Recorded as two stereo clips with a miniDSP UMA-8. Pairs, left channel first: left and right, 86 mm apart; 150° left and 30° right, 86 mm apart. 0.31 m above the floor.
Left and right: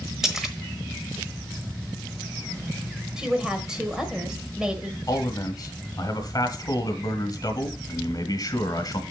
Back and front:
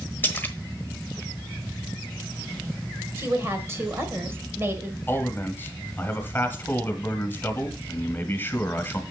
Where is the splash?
170° right, 1.2 m.